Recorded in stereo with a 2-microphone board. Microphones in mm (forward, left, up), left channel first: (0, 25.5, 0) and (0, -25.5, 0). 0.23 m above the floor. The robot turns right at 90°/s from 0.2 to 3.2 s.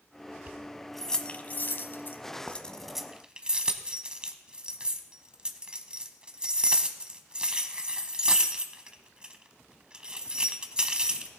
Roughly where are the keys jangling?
Right.